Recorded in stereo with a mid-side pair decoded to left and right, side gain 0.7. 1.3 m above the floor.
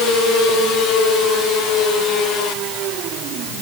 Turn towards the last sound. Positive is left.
No sound to turn to.